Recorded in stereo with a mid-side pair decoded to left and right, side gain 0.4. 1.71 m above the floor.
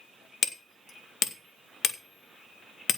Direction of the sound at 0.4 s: 55° left.